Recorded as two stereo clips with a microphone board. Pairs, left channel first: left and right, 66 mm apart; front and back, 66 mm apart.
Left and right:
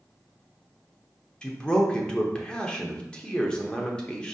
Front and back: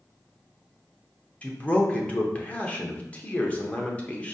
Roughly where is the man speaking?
Ahead left.